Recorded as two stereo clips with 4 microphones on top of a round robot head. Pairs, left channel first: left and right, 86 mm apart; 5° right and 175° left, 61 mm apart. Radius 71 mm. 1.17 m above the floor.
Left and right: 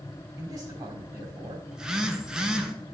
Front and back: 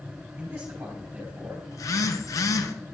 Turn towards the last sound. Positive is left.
turn(degrees=-10)